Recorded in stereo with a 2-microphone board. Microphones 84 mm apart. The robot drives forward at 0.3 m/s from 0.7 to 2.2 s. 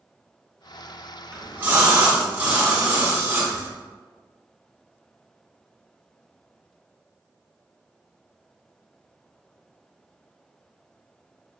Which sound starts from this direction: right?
A splash, at 1.3 s.